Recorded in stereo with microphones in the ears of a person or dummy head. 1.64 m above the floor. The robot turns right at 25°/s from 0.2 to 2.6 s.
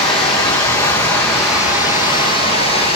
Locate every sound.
0.0 s running water: 145° left, 1.9 m; by 3.0 s 155° right, 1.9 m